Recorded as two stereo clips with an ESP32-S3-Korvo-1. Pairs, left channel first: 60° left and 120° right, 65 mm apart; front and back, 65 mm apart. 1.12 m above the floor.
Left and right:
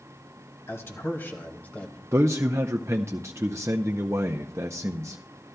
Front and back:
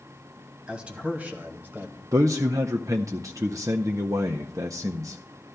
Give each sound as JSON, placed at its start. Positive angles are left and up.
{"t": 0.7, "sound": "a man speaking", "azimuth_deg": 105, "distance_m": 2.0}
{"t": 2.1, "sound": "a man speaking", "azimuth_deg": -155, "distance_m": 0.5}